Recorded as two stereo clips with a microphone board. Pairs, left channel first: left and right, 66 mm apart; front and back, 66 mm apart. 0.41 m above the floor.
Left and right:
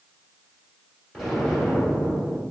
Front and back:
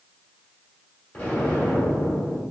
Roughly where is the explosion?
Ahead.